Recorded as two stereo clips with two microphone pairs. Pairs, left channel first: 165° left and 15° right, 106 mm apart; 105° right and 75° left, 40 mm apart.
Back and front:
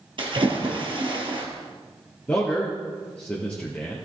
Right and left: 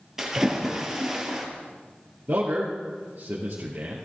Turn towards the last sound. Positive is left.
turn(degrees=95)